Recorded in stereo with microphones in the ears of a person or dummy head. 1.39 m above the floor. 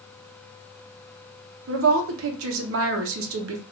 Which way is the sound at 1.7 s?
75° right (ahead or behind).